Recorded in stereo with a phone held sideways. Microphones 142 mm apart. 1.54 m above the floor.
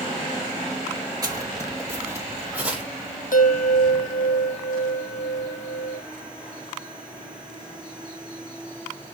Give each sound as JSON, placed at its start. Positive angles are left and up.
{"t": 1.2, "sound": "footsteps", "side_deg": -25, "distance_m": 1.9}
{"t": 3.3, "sound": "a bell", "side_deg": 70, "distance_m": 1.0}